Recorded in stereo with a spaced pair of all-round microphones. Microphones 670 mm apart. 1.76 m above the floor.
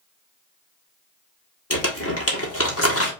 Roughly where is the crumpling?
Left.